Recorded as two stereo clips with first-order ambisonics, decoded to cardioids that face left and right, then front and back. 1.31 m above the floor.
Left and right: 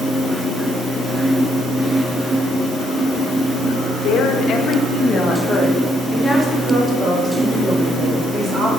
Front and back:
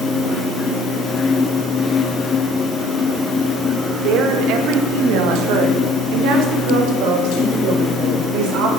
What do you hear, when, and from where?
4.0 s a woman speaking: 140° left, 1.5 m; by 8.7 s 160° right, 3 m